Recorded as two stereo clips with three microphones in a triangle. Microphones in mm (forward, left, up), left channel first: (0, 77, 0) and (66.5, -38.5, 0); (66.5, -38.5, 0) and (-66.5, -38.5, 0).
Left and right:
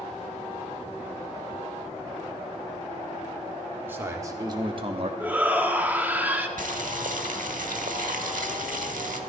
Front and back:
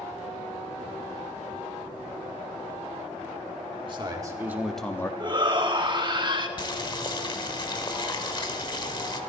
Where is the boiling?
55° right, 1.0 m.